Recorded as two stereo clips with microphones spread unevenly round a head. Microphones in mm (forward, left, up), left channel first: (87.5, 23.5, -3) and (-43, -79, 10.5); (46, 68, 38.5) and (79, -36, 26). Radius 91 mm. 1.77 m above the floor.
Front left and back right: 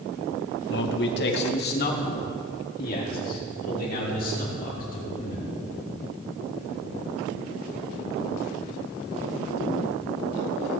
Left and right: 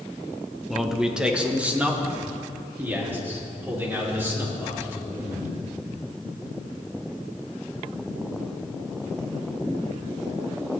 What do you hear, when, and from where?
0.7 s a man speaking: 20° left, 1.4 m; by 5.5 s straight ahead, 6.5 m